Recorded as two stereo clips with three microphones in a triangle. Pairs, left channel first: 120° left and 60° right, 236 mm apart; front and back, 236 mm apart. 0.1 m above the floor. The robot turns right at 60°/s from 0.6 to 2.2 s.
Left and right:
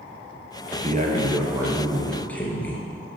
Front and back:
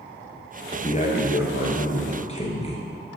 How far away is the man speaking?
About 1.5 m.